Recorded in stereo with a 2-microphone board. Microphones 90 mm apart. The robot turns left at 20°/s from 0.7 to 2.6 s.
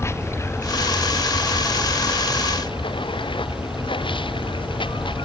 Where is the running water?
150° left; by 5.3 s 115° left.